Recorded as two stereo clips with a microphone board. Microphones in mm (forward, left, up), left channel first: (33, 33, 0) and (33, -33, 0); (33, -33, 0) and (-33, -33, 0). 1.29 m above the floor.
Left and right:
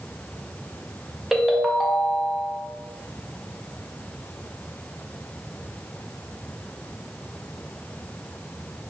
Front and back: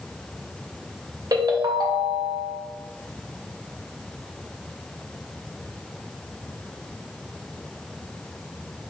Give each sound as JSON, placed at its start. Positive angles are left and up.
{"t": 1.3, "sound": "a ringtone", "azimuth_deg": -175, "distance_m": 0.6}